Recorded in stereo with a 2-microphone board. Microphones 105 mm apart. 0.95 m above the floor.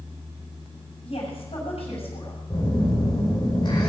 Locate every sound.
1.0 s a woman speaking: 70° left (ahead or behind), 6.5 m
2.5 s a phone buzzing: 45° left (ahead or behind), 5 m